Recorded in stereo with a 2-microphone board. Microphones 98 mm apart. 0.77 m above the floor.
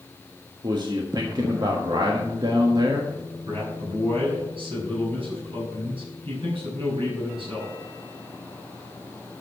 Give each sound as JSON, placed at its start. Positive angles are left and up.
{"t": 0.6, "sound": "a man speaking", "side_deg": -50, "distance_m": 1.4}
{"t": 3.5, "sound": "a man speaking", "side_deg": -65, "distance_m": 6.0}